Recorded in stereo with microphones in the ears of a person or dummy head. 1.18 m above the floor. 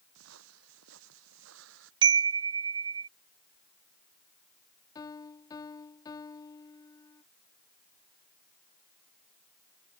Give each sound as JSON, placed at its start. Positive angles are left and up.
{"t": 0.1, "sound": "footsteps", "side_deg": -80}
{"t": 2.0, "sound": "a chime", "side_deg": -25}
{"t": 5.0, "sound": "a piano", "side_deg": 20}